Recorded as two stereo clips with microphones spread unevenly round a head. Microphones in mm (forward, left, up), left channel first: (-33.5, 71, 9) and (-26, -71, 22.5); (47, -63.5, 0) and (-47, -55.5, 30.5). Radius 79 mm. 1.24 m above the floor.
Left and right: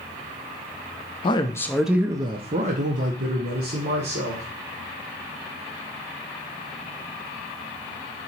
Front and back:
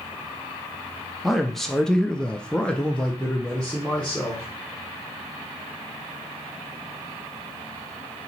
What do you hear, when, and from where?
1.2 s a man speaking: 65° left, 0.6 m; by 4.5 s 80° right, 1.6 m